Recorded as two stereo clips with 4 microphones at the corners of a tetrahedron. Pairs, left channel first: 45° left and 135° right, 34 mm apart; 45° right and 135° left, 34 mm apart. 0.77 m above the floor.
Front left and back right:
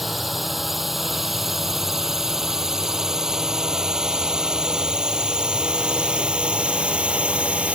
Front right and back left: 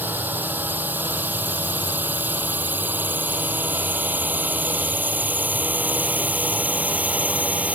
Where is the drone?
140° left; by 7.8 s 175° left.